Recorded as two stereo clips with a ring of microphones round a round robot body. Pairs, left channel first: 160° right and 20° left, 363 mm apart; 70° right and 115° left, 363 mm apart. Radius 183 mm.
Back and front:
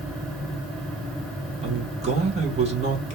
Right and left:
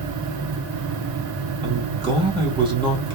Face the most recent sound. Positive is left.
turn(degrees=60)